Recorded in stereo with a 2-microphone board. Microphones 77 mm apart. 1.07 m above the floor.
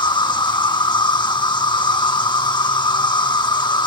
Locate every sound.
0.0 s an insect: 75° left (ahead or behind)